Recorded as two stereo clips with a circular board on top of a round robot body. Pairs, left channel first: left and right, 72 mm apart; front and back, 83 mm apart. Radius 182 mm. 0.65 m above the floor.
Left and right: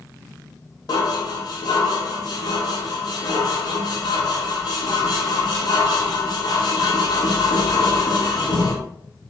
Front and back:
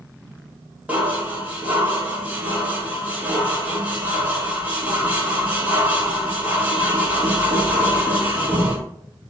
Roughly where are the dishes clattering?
Left.